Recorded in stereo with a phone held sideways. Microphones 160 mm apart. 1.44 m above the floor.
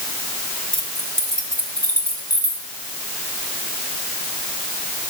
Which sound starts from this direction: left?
Keys jangling, at 0.7 s.